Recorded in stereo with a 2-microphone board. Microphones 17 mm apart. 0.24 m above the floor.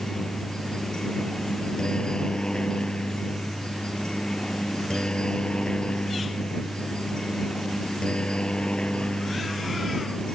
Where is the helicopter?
50° left (ahead or behind); by 10.3 s 75° left (ahead or behind).